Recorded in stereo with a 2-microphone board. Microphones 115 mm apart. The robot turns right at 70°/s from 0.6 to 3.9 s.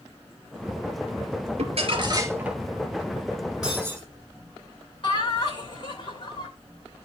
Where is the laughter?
50° left (ahead or behind), 3 m.